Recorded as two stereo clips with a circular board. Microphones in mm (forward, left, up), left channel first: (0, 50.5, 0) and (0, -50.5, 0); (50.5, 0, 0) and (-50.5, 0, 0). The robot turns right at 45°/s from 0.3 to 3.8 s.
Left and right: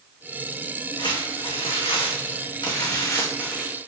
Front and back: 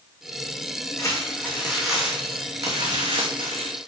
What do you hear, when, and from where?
1.0 s crumpling: 50° left, 2.5 m; by 3.8 s 175° left, 2.5 m